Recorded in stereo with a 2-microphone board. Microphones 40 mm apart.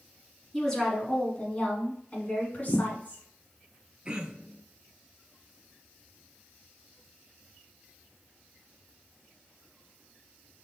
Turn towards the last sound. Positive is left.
turn(degrees=-20)  # may be behind; listen again after turning